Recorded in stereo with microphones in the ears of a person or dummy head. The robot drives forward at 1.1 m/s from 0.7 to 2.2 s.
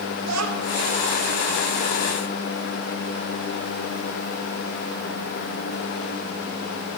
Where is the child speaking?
90° right, 3 m.